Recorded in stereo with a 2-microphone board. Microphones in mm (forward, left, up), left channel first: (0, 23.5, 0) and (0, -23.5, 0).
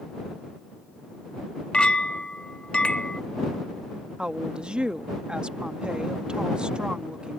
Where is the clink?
20° left (ahead or behind).